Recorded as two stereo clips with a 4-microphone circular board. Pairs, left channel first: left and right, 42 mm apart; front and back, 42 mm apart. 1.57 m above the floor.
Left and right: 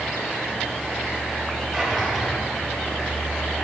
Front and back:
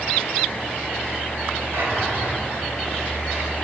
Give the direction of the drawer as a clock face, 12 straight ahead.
6 o'clock.